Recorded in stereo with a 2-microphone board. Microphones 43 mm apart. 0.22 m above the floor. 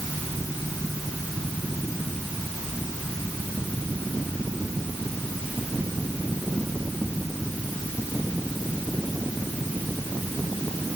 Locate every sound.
Only background noise.